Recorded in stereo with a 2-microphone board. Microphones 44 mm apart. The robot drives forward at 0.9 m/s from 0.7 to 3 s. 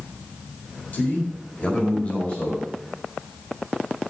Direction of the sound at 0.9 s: 40° left (ahead or behind).